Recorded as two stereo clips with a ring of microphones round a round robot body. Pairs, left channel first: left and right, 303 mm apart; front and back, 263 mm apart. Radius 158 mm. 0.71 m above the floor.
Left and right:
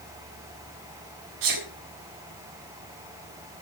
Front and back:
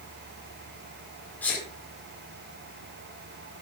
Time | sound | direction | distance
1.4 | a sneeze | 85° right | 2 m